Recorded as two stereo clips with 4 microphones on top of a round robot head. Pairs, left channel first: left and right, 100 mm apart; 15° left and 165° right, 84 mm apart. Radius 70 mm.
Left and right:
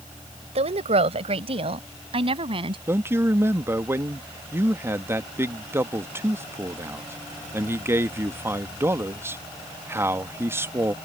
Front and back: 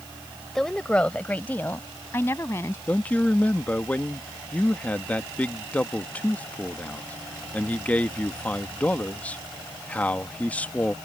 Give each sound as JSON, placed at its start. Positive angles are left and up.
{"t": 0.6, "sound": "a woman speaking", "azimuth_deg": -75}
{"t": 2.9, "sound": "a man speaking", "azimuth_deg": -50}